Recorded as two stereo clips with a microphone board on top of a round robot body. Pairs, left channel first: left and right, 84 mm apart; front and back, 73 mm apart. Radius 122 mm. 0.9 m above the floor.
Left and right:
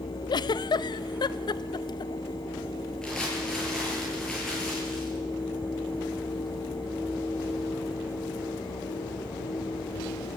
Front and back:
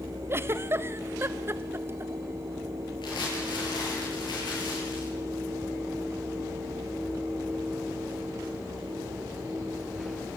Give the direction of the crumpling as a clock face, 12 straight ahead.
12 o'clock.